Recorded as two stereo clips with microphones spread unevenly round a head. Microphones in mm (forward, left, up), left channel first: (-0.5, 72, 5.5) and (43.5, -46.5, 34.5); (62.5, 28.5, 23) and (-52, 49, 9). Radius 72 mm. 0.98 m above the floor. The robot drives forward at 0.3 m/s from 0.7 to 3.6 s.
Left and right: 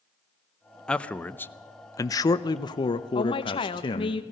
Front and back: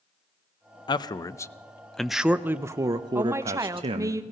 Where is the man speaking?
40° left, 0.6 m; by 4.2 s 145° left, 0.6 m.